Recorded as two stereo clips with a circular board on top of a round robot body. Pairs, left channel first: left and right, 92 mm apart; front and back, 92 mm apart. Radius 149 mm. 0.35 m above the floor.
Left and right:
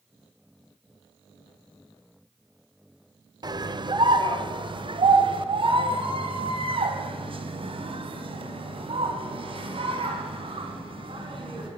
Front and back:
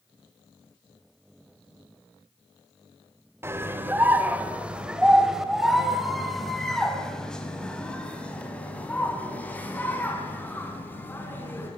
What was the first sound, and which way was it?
A scream, 120° right.